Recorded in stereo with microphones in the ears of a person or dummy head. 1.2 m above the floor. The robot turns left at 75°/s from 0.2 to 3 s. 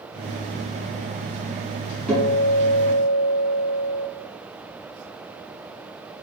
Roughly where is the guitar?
Ahead.